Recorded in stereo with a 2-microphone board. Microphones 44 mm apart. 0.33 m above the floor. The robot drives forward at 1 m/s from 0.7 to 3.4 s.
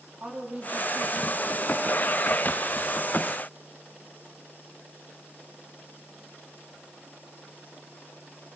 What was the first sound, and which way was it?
A woman speaking, 25° right (ahead or behind).